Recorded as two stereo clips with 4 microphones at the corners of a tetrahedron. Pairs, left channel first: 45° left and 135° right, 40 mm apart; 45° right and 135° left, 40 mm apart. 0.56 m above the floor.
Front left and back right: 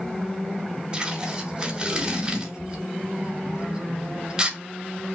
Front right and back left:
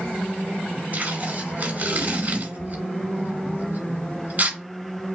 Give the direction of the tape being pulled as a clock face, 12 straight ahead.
7 o'clock.